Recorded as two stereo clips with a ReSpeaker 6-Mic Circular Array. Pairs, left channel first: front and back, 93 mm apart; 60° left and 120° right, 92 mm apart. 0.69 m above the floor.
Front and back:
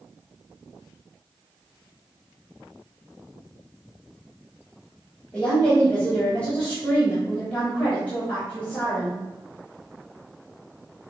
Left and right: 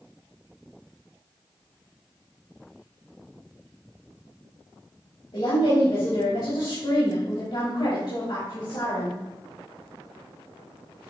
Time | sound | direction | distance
5.3 | a woman speaking | 75° left | 3.5 m